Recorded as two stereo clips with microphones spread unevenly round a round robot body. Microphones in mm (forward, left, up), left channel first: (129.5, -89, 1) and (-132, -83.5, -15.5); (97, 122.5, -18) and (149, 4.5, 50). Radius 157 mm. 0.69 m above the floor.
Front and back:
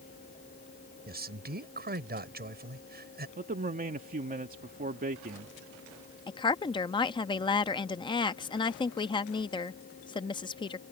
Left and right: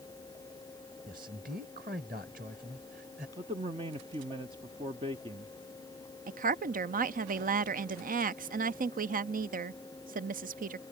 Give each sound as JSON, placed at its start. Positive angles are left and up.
{"t": 1.1, "sound": "a man speaking", "azimuth_deg": -130}
{"t": 3.4, "sound": "a man speaking", "azimuth_deg": -145}
{"t": 6.3, "sound": "a woman speaking", "azimuth_deg": -70}